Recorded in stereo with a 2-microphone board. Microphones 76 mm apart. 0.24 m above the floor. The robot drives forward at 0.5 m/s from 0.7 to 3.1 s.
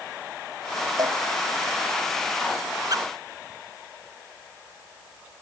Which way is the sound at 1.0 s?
55° right (ahead or behind).